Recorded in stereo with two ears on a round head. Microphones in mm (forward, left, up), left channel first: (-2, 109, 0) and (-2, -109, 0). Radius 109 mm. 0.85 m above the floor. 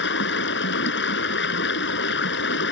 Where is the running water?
45° left (ahead or behind).